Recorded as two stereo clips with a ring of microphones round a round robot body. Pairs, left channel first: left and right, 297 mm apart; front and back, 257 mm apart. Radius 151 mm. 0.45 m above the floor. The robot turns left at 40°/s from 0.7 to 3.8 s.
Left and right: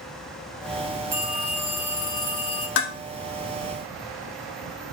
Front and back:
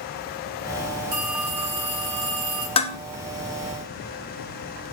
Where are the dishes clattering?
60° left, 0.6 m; by 3.0 s 55° left, 0.6 m.